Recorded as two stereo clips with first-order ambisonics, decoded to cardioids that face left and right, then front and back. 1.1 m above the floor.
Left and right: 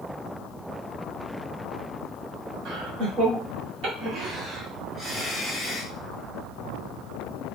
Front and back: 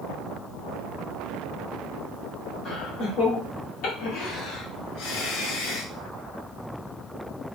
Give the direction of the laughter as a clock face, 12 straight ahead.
2 o'clock.